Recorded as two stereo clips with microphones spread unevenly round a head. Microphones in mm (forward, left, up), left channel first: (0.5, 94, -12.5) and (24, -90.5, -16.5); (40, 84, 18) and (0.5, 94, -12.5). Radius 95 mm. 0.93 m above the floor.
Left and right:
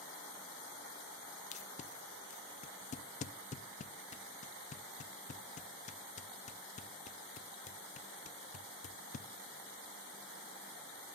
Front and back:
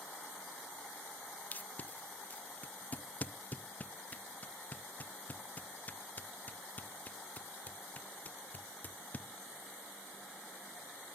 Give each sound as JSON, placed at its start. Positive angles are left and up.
{"t": 1.5, "sound": "tape being pulled", "azimuth_deg": 45, "distance_m": 0.6}